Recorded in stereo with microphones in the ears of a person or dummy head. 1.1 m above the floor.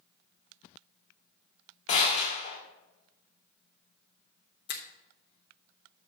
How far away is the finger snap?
About 1.0 m.